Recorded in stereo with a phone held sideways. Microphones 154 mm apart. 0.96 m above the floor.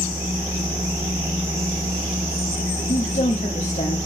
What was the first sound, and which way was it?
A machine running, 15° right (ahead or behind).